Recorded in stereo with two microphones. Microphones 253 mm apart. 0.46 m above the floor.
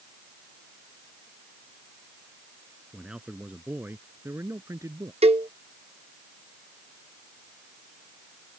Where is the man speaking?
5° right (ahead or behind); by 5.1 s 15° right (ahead or behind).